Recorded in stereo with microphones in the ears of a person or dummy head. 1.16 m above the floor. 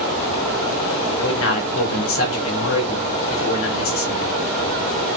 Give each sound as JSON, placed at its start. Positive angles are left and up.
{"t": 1.2, "sound": "a man speaking", "side_deg": 65, "distance_m": 2.0}